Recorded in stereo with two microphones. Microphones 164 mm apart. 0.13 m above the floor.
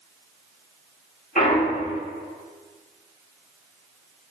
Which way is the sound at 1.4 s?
55° left (ahead or behind).